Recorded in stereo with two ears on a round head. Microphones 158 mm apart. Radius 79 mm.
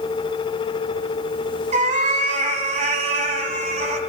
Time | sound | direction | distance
1.7 | a cat meowing | 45° right (ahead or behind) | 1.5 m